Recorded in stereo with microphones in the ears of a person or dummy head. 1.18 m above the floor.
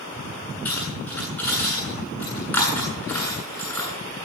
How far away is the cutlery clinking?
About 9 m.